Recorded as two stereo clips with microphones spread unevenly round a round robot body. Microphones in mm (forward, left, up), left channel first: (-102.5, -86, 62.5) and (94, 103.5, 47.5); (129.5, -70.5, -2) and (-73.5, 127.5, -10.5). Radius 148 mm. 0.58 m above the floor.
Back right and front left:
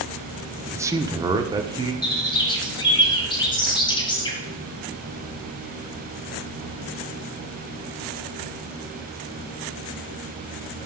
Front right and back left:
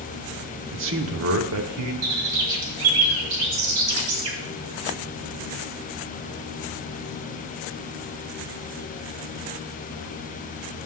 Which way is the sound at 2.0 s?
150° left.